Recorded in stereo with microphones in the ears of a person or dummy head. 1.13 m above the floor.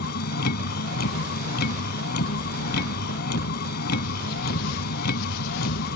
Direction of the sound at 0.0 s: 60° left (ahead or behind).